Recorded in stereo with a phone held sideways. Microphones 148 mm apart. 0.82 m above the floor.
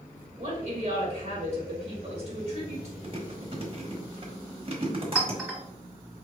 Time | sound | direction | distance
0.4 | a woman speaking | 50° right (ahead or behind) | 1.3 m
3.0 | chewing | 40° right (ahead or behind) | 1.2 m
5.2 | a clink | 5° right (ahead or behind) | 1.6 m